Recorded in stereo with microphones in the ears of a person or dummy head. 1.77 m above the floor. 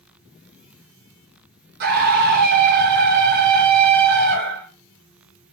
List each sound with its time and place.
1.8 s a scream: 55° right (ahead or behind), 1.9 m